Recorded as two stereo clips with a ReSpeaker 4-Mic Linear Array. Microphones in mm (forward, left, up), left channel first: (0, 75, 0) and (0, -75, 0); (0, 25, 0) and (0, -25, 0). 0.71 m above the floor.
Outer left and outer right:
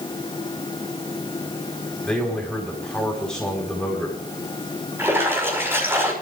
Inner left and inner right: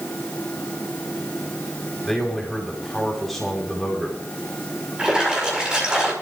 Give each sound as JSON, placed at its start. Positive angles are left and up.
{"t": 2.0, "sound": "a man speaking", "side_deg": 5, "distance_m": 4.5}
{"t": 5.0, "sound": "a splash", "side_deg": -15, "distance_m": 5.0}